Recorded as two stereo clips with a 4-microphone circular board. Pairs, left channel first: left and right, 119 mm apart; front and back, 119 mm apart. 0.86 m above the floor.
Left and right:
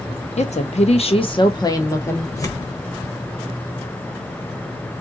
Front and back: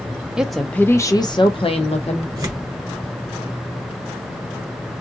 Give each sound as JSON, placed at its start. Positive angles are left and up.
{"t": 0.4, "sound": "a woman speaking", "azimuth_deg": 95, "distance_m": 0.8}
{"t": 2.4, "sound": "tearing paper", "azimuth_deg": 135, "distance_m": 1.1}